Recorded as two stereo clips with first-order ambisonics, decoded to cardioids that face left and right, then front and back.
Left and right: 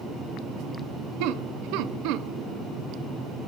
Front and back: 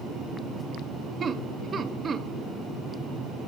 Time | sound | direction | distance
1.2 | laughter | 110° right | 0.6 m